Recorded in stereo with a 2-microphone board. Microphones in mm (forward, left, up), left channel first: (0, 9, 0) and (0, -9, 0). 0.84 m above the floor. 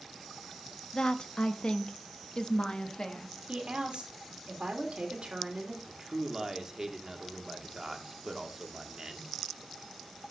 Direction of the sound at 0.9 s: 45° left (ahead or behind).